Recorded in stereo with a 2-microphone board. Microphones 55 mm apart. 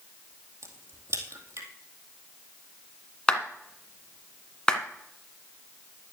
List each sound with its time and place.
0.6 s a crack: 65° right (ahead or behind), 2 m
3.3 s a clap: 15° left (ahead or behind), 1.6 m